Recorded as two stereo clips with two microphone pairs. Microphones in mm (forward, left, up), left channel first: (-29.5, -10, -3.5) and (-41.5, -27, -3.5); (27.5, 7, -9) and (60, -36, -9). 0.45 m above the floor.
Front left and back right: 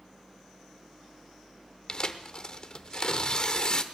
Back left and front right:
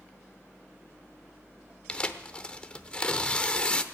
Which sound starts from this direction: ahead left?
Tearing paper, at 1.9 s.